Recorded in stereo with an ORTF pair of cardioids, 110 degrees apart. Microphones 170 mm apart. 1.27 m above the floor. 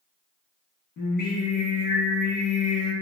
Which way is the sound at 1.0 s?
60° left.